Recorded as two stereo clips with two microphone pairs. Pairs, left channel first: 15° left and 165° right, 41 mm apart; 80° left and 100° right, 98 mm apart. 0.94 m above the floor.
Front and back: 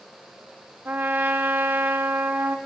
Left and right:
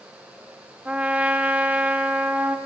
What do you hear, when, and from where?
0.8 s a trumpet: straight behind, 0.8 m